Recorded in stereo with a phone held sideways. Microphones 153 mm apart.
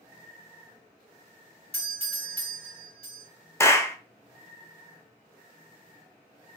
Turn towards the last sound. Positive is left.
turn(degrees=15)  # may be behind; listen again after turning